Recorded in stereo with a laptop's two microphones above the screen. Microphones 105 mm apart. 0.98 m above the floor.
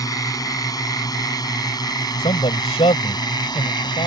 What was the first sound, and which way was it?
A drone, 35° left (ahead or behind).